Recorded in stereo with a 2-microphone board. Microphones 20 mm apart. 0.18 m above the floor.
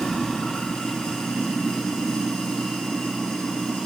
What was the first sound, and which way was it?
Running water, 65° left (ahead or behind).